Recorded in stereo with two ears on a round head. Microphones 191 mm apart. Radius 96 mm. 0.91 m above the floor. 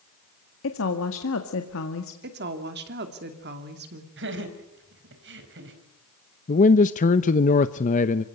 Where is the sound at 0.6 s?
65° left (ahead or behind), 1.9 m.